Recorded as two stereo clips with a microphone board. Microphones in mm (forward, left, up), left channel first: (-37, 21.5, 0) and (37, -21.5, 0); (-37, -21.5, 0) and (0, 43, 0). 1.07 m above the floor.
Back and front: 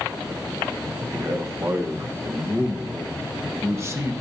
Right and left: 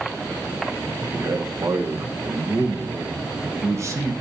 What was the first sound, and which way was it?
A man speaking, 20° left.